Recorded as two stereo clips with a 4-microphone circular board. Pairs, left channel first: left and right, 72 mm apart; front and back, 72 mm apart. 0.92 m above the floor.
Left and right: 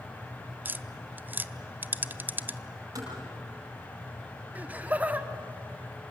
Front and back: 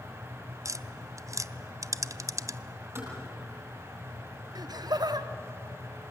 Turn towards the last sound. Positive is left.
turn(degrees=-160)